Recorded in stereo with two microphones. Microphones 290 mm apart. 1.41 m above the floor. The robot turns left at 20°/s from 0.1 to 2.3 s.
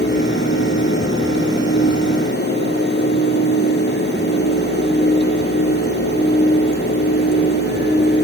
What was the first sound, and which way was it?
Only background noise.